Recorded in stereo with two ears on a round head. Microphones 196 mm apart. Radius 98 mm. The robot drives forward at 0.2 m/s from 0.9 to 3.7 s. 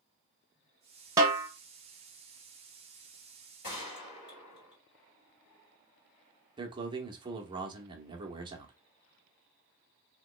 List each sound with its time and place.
1.2 s a snare drum: 15° right (ahead or behind), 0.7 m
3.6 s a gunshot: 50° left (ahead or behind), 2.5 m
6.6 s a man speaking: 20° right (ahead or behind), 0.7 m